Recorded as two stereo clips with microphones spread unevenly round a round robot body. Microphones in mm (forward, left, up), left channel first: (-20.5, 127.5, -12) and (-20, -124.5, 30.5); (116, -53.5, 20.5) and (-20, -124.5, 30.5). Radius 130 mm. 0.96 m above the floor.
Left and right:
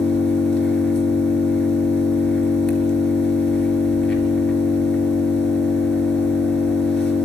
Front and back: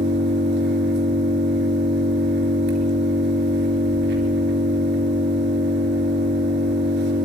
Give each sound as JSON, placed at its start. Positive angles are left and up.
{"t": 0.0, "sound": "an engine running", "azimuth_deg": 180, "distance_m": 3.5}